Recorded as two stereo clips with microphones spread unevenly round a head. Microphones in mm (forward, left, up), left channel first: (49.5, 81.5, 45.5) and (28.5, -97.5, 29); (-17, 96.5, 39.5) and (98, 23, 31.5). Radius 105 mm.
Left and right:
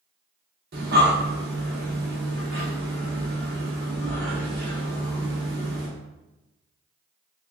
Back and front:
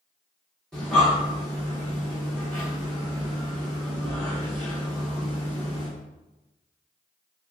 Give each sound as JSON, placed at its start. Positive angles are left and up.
{"t": 0.7, "sound": "breathing", "azimuth_deg": -130, "distance_m": 0.6}